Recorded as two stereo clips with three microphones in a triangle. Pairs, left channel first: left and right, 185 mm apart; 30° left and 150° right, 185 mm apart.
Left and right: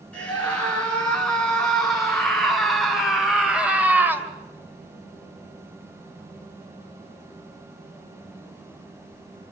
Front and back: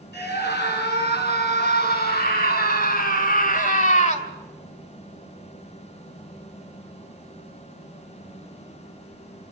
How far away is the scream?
About 7 m.